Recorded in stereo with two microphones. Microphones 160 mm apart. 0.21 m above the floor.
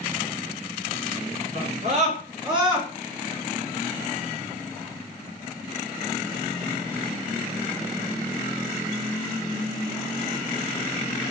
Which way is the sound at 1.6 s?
55° right (ahead or behind).